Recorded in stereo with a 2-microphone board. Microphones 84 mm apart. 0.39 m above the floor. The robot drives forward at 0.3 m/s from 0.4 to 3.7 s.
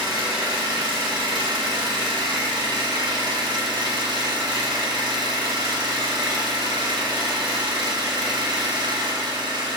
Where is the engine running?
75° right (ahead or behind), 2.5 m.